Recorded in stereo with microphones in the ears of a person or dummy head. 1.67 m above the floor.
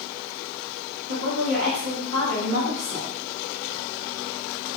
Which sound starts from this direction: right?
A woman speaking, at 1.1 s.